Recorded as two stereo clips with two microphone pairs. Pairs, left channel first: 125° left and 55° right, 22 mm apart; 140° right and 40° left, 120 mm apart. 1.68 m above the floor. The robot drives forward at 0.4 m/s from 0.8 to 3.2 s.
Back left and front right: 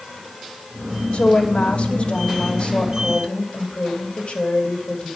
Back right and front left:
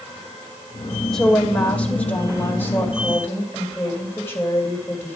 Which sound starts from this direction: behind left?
A woman speaking, at 1.1 s.